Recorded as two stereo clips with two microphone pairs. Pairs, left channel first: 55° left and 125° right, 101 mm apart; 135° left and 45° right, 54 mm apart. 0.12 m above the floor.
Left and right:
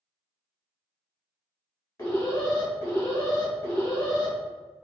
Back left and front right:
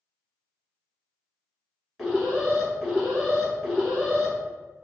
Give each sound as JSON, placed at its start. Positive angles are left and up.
{"t": 2.0, "sound": "an alarm", "azimuth_deg": 45, "distance_m": 1.5}